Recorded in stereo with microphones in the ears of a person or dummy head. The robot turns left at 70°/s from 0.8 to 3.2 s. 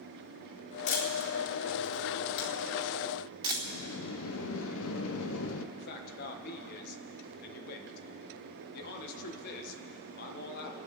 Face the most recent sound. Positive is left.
turn(degrees=55)  # may be behind; listen again after turning